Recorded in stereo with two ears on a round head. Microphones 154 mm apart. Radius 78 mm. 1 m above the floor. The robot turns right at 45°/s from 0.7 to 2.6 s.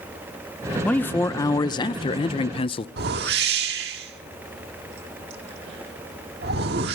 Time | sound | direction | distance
0.8 | a man speaking | 15° left | 0.5 m
3.0 | a whoosh | 60° right (ahead or behind) | 1.6 m